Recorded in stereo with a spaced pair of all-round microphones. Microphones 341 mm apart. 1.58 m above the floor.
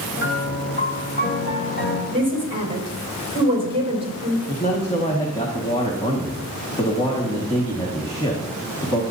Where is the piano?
30° left (ahead or behind), 1.5 m.